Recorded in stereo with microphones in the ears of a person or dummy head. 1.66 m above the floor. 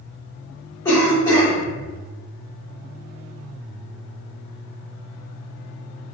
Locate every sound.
0.8 s a cough: 20° left (ahead or behind), 1.1 m